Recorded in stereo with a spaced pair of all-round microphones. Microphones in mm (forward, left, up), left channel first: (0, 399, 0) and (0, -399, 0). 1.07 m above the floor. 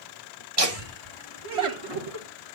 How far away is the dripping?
No dripping in this recording.